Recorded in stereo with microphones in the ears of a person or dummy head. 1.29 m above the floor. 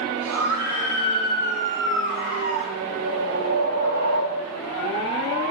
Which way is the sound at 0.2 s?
85° right.